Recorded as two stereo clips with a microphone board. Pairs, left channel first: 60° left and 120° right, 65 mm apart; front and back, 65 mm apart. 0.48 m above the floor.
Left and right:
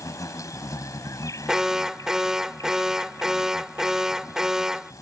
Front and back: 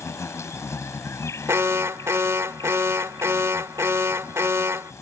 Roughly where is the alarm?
Behind.